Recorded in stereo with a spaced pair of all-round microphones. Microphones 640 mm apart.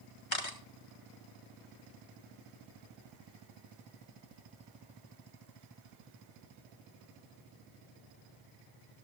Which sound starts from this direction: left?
A camera shutter, at 0.3 s.